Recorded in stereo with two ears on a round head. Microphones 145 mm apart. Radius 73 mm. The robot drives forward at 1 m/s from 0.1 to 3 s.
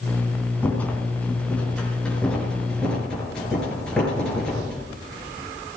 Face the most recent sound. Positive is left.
turn(degrees=5)  # may be behind; listen again after turning